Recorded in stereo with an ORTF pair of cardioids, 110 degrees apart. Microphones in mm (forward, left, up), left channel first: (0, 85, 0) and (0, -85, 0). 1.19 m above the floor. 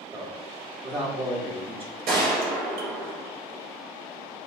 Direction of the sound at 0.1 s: 35° right.